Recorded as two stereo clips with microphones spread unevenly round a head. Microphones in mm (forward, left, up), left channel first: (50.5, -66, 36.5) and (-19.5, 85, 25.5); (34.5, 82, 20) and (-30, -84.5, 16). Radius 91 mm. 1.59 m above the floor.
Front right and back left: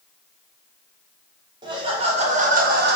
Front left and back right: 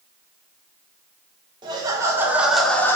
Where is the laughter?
Straight behind, 1.7 m; by 3.0 s 145° left, 1.1 m.